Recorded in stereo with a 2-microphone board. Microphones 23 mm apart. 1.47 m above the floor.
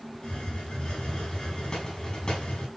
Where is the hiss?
40° left (ahead or behind), 6.5 m.